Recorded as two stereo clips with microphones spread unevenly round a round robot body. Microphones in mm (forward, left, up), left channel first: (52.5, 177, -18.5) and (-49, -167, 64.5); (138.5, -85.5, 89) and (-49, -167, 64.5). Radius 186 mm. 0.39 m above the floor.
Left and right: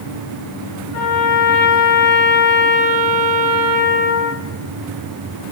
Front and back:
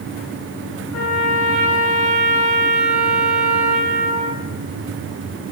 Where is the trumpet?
25° left, 3 m.